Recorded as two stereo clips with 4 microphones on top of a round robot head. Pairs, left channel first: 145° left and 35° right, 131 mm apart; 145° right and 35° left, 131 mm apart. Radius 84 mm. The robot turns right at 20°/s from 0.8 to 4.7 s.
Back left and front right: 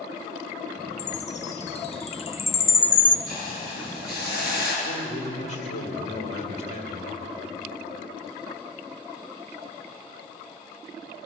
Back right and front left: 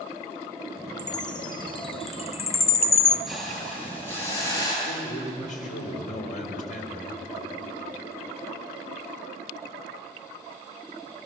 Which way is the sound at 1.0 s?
155° left.